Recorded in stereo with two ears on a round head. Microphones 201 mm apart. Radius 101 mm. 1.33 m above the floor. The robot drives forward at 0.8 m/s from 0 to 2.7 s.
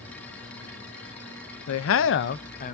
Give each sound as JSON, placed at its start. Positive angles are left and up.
{"t": 1.7, "sound": "a man speaking", "side_deg": 70, "distance_m": 0.6}